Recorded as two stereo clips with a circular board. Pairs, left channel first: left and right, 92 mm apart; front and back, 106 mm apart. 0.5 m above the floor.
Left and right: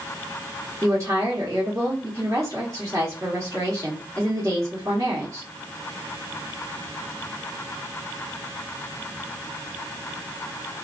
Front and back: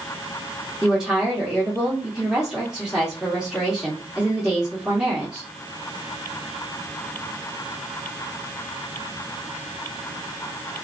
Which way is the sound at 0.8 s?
100° right.